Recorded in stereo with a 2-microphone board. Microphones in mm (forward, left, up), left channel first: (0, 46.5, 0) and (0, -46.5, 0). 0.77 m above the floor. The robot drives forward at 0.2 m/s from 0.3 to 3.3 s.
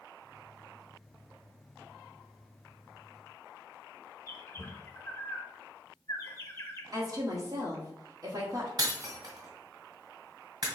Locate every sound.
4.3 s a bird: 30° left (ahead or behind), 0.7 m
6.9 s a woman speaking: 40° right (ahead or behind), 1.2 m
8.8 s breaking glass: 45° right (ahead or behind), 1.6 m